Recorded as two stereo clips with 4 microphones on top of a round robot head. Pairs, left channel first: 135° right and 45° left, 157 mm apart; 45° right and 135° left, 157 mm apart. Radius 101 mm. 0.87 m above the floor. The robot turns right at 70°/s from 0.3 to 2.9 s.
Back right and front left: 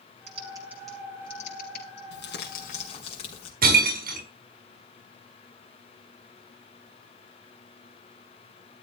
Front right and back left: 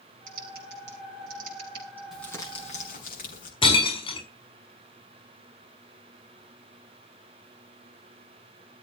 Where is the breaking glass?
15° left, 5 m.